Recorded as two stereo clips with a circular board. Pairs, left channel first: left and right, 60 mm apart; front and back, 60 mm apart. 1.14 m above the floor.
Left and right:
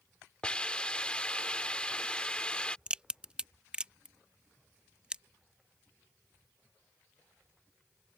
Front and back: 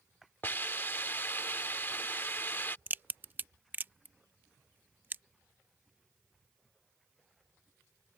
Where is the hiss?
25° left.